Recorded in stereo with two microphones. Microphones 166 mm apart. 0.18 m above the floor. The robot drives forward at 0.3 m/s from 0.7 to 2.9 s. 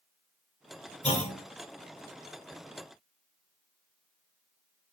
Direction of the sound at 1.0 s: 45° left (ahead or behind).